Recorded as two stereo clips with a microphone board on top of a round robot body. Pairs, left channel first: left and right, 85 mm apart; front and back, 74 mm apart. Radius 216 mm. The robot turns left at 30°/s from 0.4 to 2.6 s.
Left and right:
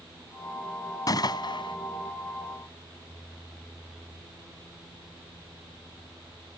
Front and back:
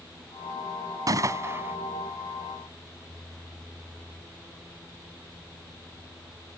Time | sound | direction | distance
1.1 | a gunshot | 135° left | ?